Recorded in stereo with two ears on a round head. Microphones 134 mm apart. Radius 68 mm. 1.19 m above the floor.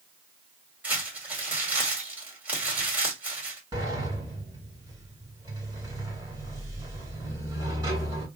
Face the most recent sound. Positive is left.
turn(degrees=-25)  # may be behind; listen again after turning